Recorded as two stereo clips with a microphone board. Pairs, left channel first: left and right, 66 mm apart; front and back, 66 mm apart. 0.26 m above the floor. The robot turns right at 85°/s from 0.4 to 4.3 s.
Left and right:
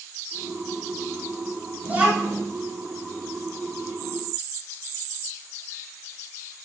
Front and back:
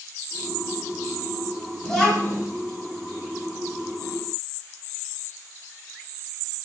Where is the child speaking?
80° right, 1.0 m; by 2.4 s 30° right, 1.0 m.